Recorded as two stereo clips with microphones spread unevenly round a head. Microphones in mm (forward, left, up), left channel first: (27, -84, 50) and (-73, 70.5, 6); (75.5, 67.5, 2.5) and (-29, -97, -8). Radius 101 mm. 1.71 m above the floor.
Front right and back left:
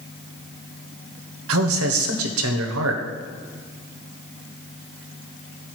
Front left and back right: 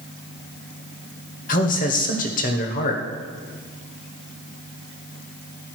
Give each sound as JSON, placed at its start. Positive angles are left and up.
{"t": 1.5, "sound": "a man speaking", "azimuth_deg": 110, "distance_m": 1.1}